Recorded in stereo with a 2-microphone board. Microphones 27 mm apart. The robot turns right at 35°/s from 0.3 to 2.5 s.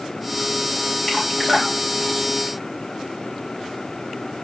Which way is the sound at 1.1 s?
35° left (ahead or behind).